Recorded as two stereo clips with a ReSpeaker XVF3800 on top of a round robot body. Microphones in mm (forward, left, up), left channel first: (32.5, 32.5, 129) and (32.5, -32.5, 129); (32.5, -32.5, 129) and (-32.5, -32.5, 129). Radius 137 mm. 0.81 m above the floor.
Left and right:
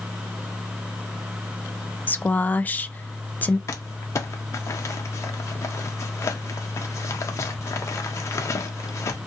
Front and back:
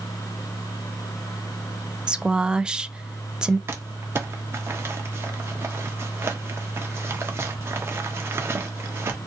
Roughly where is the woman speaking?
Behind left.